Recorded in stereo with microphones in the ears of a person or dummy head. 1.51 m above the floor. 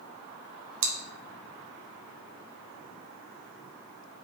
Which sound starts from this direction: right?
Chewing, at 0.8 s.